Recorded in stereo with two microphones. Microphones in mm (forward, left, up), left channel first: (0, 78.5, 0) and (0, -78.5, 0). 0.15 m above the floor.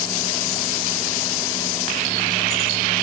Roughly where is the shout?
No shout in this recording.